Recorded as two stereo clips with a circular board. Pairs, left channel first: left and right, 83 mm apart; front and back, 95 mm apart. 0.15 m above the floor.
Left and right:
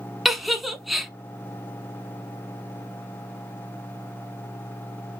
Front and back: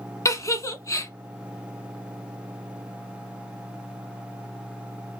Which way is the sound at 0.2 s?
Straight ahead.